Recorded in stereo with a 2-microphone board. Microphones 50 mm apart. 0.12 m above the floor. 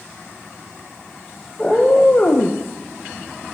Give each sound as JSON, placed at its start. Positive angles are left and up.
{"t": 1.6, "sound": "a cat meowing", "side_deg": 15, "distance_m": 1.1}